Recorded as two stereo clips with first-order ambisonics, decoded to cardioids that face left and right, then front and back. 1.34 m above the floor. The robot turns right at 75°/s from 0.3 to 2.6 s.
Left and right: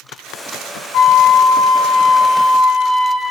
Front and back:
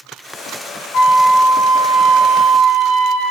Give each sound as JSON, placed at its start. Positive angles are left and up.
{"t": 0.9, "sound": "a flute", "azimuth_deg": 35, "distance_m": 2.5}